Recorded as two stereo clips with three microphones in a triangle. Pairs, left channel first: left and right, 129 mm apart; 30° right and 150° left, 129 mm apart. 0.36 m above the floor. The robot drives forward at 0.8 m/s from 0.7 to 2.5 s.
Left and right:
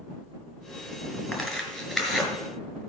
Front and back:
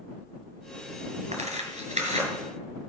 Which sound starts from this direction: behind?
Tearing paper, at 1.3 s.